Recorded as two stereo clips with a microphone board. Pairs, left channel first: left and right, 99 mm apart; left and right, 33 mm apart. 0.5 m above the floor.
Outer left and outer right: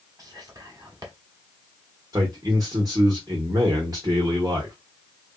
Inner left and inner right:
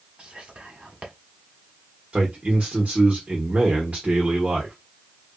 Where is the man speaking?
40° right (ahead or behind), 1.1 m.